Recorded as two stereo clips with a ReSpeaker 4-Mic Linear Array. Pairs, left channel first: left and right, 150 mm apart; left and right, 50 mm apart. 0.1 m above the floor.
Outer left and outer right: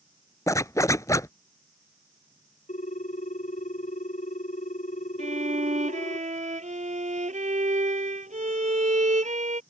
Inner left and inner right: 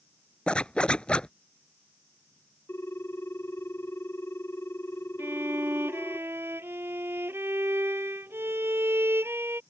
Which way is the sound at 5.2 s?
55° right (ahead or behind).